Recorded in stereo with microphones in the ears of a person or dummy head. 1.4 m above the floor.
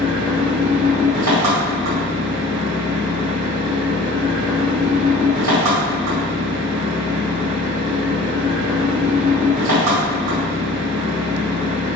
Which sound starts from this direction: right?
An engine running, at 0.0 s.